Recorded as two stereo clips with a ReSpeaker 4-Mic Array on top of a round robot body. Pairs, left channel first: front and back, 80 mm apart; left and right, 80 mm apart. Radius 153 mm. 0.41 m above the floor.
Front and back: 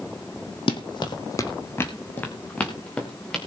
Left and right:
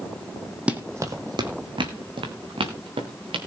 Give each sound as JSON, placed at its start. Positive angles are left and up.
{"t": 0.7, "sound": "running footsteps", "azimuth_deg": -10, "distance_m": 1.0}